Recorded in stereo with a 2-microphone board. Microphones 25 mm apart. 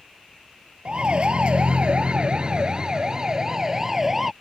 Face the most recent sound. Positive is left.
turn(degrees=-10)  # may be behind; listen again after turning